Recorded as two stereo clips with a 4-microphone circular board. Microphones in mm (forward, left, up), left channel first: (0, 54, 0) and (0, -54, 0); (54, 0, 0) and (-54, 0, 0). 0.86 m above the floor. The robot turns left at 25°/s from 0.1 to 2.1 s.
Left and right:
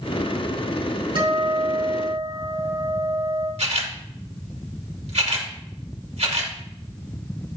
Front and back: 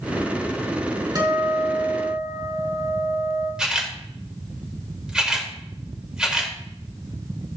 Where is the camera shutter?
100° right, 1.9 m.